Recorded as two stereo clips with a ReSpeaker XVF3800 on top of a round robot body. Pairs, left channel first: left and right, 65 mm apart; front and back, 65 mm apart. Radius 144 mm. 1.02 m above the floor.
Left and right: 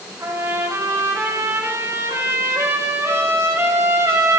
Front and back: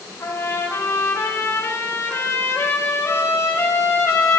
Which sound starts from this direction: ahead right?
A trumpet, at 0.2 s.